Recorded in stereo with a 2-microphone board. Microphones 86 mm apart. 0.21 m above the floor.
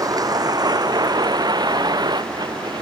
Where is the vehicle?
45° right (ahead or behind); by 2.8 s 55° right (ahead or behind).